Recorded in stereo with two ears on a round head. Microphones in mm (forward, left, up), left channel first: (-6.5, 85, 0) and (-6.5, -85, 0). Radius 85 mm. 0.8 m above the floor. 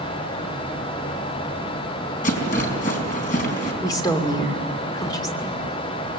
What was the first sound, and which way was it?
A rattle, 45° left (ahead or behind).